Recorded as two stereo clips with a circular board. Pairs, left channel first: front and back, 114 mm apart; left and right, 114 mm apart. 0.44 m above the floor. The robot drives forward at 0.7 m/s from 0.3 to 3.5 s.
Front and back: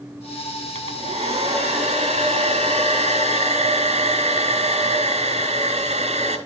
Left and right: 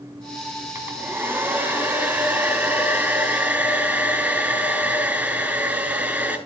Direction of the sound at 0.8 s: 160° right.